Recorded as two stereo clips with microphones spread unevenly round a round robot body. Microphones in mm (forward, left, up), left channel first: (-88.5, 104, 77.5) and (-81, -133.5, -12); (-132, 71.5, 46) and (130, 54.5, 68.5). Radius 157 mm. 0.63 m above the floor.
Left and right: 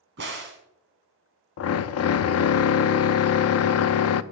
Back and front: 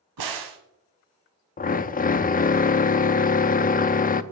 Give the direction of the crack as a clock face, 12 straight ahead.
1 o'clock.